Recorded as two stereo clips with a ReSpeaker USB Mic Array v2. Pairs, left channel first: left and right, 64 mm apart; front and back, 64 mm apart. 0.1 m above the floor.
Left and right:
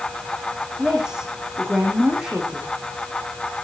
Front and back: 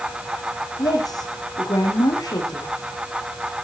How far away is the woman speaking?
About 5 m.